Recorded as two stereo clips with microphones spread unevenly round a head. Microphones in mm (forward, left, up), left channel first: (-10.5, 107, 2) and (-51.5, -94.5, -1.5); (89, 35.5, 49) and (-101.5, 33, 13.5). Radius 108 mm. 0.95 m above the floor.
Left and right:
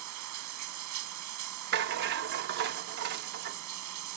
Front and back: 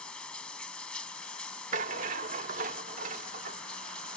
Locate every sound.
0.0 s running water: 85° right
1.7 s a rattle: 120° right